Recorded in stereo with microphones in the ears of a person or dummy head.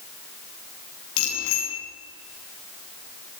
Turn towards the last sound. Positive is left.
turn(degrees=75)  # may be behind; listen again after turning